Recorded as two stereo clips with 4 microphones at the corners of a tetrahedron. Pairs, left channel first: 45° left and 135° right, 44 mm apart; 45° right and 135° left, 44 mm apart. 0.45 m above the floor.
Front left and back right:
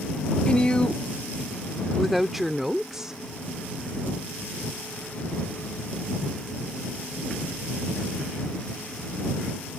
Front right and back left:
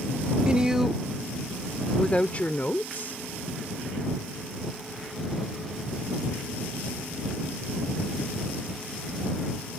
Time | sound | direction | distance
0.5 | a woman speaking | 80° left | ?